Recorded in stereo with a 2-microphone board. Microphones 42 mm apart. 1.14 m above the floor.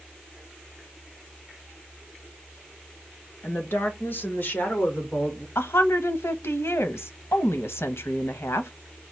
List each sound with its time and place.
3.4 s a woman speaking: 65° left (ahead or behind), 1.5 m; by 5.5 s 35° left (ahead or behind), 2 m
5.5 s a woman speaking: 85° left, 0.9 m